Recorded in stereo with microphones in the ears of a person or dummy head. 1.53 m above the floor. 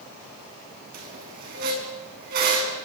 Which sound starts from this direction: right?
A squeak, at 0.9 s.